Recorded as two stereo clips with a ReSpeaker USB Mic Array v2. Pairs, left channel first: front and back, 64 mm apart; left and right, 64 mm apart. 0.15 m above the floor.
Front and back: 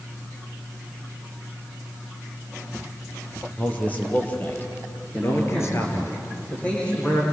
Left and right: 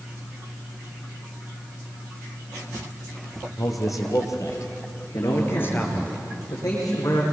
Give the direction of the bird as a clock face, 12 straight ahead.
No bird in this recording.